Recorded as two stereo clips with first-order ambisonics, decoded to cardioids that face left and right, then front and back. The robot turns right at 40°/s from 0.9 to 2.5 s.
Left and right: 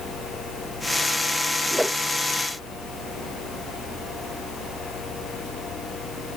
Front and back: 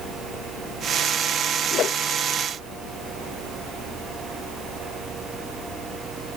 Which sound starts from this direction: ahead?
A whoosh, at 1.7 s.